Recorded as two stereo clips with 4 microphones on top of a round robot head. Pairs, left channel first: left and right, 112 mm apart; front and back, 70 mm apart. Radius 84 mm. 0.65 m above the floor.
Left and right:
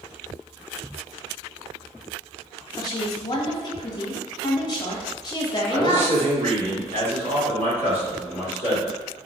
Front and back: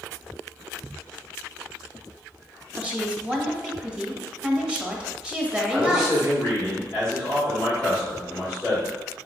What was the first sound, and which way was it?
A woman speaking, 115° left.